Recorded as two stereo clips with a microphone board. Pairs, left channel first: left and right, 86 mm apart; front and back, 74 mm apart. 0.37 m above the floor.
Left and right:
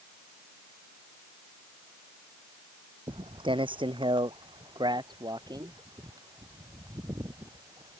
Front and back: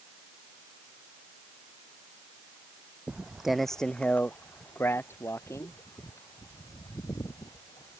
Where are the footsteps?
110° right; by 8.0 s 40° right.